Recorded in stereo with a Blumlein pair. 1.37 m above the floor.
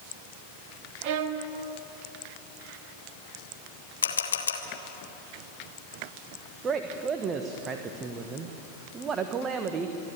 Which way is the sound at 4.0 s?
70° left.